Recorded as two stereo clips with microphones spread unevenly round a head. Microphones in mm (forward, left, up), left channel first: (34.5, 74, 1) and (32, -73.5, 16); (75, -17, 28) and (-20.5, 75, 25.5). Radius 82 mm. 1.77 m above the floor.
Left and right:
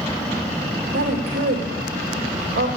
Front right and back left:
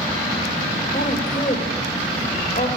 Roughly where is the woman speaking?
Right.